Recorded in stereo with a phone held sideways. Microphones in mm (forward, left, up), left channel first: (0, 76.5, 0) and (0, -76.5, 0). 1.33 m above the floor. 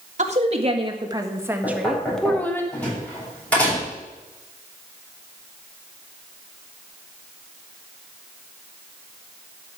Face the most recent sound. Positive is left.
turn(degrees=10)  # may be behind; listen again after turning